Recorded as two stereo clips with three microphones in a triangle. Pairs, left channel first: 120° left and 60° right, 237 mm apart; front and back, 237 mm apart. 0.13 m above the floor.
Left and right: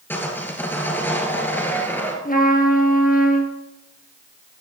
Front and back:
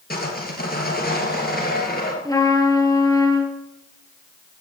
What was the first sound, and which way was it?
Sawing, 40° left.